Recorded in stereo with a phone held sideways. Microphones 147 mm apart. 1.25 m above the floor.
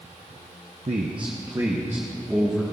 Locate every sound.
0.9 s a man speaking: 50° right (ahead or behind), 0.8 m; by 2.6 s 5° right (ahead or behind), 1.8 m